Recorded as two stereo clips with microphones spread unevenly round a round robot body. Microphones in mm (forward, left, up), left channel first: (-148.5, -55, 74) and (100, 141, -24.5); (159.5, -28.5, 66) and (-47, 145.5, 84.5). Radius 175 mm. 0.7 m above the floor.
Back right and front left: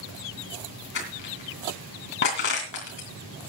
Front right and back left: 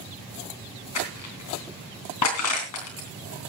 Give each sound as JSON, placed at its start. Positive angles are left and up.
{"t": 0.9, "sound": "crushing", "azimuth_deg": -80, "distance_m": 3.0}